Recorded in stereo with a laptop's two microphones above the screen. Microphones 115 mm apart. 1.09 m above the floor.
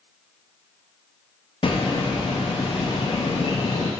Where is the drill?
I don't hear a drill.